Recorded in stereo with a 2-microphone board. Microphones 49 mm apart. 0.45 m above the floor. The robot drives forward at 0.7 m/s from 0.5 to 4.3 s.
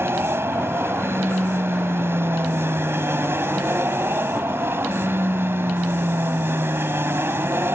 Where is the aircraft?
55° right (ahead or behind).